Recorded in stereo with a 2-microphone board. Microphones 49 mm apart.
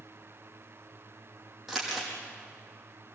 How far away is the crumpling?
About 6 m.